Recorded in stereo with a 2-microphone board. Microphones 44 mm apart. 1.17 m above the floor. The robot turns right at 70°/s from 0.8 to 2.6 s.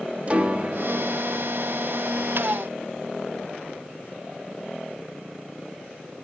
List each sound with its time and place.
0.3 s a piano: 30° right (ahead or behind), 1.4 m; by 1.1 s 55° right (ahead or behind), 1.4 m